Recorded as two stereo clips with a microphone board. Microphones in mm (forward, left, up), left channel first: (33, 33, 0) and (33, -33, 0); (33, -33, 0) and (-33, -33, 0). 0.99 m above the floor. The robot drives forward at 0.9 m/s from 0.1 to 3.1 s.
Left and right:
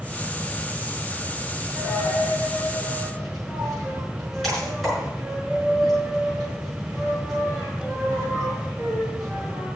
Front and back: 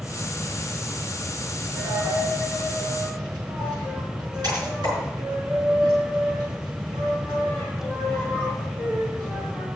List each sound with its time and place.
1.7 s a dropped coin: straight behind, 4.5 m